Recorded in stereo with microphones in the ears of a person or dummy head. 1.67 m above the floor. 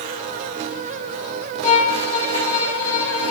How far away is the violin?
About 2.5 m.